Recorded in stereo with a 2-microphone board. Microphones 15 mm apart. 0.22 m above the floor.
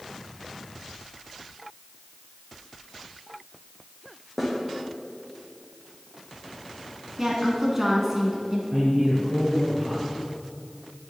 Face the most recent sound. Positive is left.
turn(degrees=-35)  # may be behind; listen again after turning